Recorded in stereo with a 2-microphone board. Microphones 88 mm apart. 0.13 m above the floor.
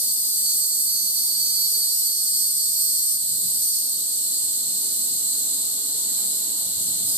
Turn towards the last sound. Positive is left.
turn(degrees=-20)  # may be behind; listen again after turning